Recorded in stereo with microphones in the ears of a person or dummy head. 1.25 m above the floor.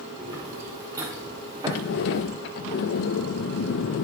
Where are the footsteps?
15° right (ahead or behind), 4.5 m; by 2.2 s 25° right (ahead or behind), 6 m.